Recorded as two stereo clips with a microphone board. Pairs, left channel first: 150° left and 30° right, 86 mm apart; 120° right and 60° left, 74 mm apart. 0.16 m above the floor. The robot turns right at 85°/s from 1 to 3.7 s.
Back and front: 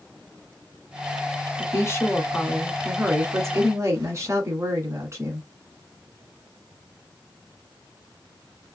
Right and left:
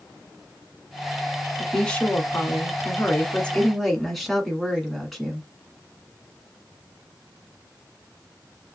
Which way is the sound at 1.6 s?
150° left.